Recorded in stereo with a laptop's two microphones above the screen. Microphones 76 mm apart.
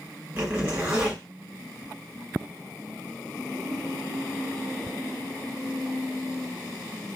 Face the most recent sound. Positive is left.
turn(degrees=-25)  # may be behind; listen again after turning